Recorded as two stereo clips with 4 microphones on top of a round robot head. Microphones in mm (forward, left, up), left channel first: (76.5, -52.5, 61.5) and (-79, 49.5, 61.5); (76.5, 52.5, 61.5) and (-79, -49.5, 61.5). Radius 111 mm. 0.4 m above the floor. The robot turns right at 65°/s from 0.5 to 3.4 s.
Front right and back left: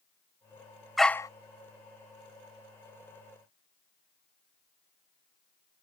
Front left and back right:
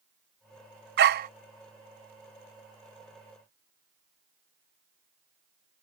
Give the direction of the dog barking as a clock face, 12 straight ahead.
4 o'clock.